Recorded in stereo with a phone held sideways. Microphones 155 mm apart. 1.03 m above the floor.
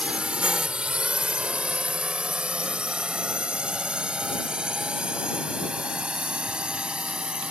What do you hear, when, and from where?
0.0 s a drone: 5° right (ahead or behind)